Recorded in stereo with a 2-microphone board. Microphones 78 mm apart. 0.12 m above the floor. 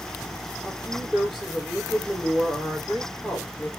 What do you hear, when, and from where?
0.7 s a woman speaking: 5° left (ahead or behind), 4.5 m